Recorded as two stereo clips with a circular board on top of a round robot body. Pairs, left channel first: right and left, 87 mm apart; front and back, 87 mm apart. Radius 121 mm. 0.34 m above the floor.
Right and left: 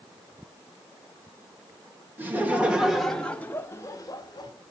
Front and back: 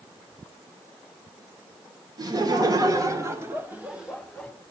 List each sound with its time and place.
2.2 s laughter: 150° left, 2 m; by 4.5 s 85° right, 1.8 m